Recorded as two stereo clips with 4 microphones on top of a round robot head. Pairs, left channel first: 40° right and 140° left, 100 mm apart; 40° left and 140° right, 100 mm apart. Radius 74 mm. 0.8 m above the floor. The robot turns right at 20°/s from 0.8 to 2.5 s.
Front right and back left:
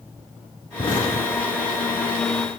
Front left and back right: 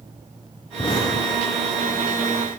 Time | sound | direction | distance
0.8 | an explosion | straight ahead | 5.5 m